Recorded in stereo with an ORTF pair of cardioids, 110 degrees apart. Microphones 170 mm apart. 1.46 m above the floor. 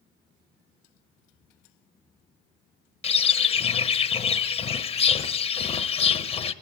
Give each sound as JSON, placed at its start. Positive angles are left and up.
{"t": 3.0, "sound": "a bird", "azimuth_deg": 40, "distance_m": 1.1}